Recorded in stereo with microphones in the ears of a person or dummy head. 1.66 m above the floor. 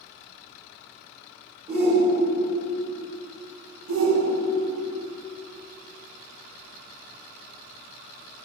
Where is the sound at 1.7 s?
30° right (ahead or behind), 3 m.